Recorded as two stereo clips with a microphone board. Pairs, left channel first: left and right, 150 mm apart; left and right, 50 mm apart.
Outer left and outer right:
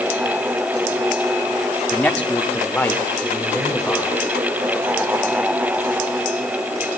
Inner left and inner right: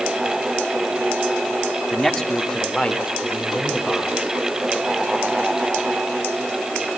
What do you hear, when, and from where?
1.9 s a man speaking: 10° left (ahead or behind), 1.7 m